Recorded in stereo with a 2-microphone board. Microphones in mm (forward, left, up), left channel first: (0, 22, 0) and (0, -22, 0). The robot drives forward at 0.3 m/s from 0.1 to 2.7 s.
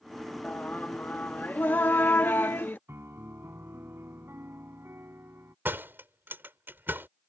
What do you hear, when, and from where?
0.4 s singing: 40° left (ahead or behind); by 2.8 s 50° left (ahead or behind)
2.9 s a piano: 65° right (ahead or behind)
5.7 s a door slam: 50° right (ahead or behind)